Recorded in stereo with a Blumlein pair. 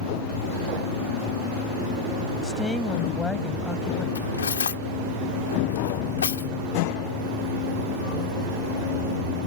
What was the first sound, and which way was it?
A woman speaking, 10° left.